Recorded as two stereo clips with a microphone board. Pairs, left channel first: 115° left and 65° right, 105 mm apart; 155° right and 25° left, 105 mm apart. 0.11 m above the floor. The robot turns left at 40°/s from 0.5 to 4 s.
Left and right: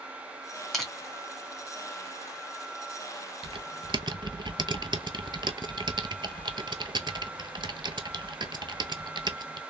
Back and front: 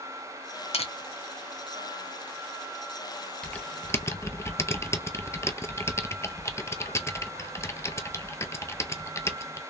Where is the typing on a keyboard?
75° right, 0.6 m; by 9.6 s 100° right, 0.6 m.